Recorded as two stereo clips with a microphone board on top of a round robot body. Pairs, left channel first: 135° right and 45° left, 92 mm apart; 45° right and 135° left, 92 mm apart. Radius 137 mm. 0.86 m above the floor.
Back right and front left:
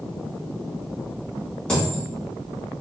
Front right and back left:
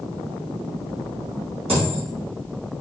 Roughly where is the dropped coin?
Behind left.